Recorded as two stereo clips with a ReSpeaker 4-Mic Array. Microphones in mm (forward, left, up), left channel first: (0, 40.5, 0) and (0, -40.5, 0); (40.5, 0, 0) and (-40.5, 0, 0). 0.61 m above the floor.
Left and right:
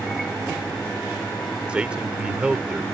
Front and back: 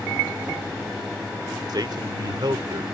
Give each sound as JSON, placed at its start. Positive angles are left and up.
{"t": 1.7, "sound": "a man speaking", "azimuth_deg": -165}